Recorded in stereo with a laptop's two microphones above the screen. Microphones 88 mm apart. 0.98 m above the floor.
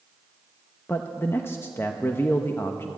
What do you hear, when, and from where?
0.9 s a man speaking: 30° left (ahead or behind), 0.9 m